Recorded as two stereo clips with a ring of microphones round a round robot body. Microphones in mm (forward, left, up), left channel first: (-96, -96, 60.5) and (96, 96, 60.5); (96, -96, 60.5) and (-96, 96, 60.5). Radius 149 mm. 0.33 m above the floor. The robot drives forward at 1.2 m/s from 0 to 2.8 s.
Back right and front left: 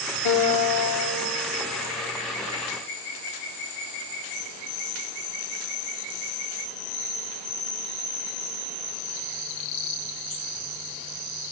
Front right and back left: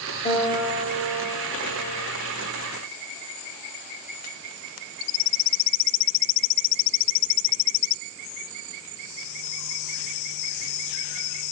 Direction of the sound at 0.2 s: 115° right.